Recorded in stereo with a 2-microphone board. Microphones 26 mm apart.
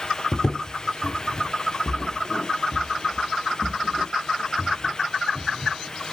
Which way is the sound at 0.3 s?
25° left (ahead or behind).